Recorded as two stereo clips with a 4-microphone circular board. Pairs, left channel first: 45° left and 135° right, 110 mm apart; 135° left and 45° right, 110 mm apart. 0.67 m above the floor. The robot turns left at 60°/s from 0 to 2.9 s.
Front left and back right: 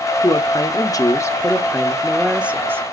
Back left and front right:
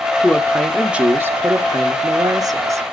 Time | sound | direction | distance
0.2 | a woman speaking | 70° left | 1.1 m